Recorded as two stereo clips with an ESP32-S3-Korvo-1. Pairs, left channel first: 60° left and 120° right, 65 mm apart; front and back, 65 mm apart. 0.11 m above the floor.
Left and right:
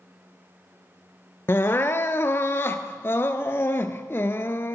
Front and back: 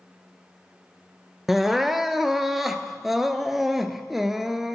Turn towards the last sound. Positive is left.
turn(degrees=95)